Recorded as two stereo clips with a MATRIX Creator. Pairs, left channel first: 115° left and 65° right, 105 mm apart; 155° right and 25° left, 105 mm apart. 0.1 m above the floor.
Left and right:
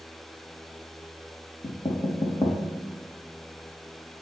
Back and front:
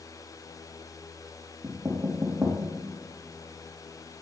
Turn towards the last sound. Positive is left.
turn(degrees=80)